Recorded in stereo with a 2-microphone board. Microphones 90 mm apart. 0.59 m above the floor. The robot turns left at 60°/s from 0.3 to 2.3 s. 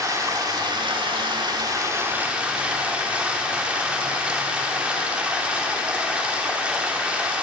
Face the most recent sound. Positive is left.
turn(degrees=-165)